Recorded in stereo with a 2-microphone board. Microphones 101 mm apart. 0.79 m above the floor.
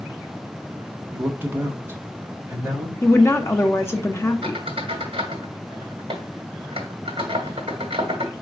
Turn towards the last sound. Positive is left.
turn(degrees=-65)  # may be behind; listen again after turning